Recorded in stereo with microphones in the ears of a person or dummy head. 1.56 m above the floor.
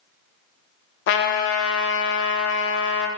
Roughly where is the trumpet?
Left.